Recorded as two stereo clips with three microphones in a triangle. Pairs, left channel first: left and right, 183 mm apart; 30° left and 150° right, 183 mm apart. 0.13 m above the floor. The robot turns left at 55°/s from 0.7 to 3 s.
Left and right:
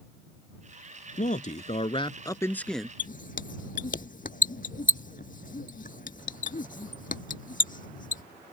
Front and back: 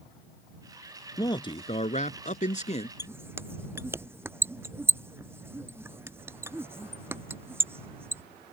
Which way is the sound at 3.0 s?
135° left.